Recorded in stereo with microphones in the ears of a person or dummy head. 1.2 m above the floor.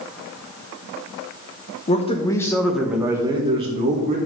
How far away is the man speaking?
About 1.2 m.